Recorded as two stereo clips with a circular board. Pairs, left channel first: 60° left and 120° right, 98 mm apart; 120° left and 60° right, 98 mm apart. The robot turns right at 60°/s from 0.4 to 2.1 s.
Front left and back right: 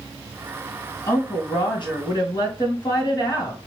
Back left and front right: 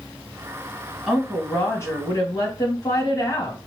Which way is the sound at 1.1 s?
20° left.